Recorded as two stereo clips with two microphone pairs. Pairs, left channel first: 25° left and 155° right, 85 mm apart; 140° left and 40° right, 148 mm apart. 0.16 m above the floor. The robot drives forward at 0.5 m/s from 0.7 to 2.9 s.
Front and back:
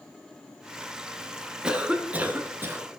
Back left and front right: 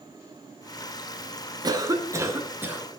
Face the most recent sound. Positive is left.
turn(degrees=-110)